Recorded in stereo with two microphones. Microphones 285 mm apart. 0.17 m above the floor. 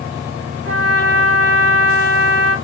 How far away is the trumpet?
About 0.9 m.